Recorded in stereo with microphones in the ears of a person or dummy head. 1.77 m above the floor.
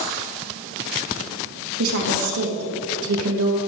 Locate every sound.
1.8 s a woman speaking: 75° right (ahead or behind), 3 m